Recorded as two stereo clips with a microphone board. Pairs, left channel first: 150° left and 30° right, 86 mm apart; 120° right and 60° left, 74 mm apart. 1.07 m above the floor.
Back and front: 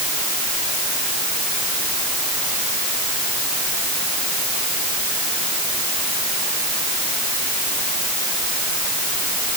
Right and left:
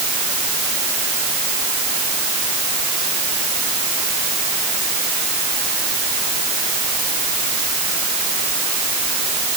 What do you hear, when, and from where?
Only background noise.